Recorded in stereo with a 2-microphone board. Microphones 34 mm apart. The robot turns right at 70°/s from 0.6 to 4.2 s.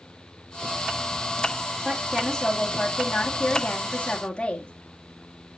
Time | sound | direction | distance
1.9 | a woman speaking | 15° right | 2.5 m